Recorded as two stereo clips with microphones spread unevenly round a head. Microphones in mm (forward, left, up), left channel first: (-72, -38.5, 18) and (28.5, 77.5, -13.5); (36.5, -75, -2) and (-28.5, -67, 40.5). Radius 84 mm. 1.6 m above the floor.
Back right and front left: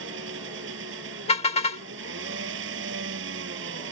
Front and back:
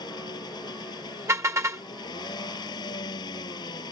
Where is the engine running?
30° left.